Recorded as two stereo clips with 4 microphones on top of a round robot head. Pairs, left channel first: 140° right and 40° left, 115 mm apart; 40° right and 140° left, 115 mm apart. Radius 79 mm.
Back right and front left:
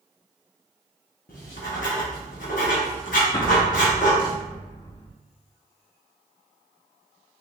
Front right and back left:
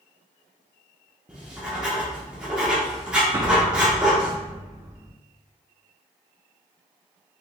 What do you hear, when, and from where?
1.3 s writing: 140° right, 0.7 m
3.3 s an explosion: 175° right, 0.7 m